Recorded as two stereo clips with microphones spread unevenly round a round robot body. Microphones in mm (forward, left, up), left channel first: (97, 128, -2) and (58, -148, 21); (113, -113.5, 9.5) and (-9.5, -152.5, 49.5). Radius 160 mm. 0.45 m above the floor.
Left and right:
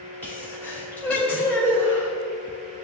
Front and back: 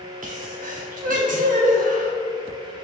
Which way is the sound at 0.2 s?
165° left.